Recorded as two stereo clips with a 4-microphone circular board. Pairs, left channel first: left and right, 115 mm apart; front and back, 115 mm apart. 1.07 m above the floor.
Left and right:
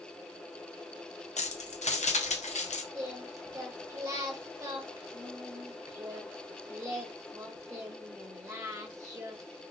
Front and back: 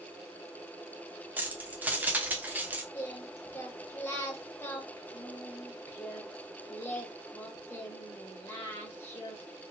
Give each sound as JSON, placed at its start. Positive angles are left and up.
{"t": 1.4, "sound": "keys jangling", "azimuth_deg": 105, "distance_m": 0.6}
{"t": 2.9, "sound": "singing", "azimuth_deg": -50, "distance_m": 0.9}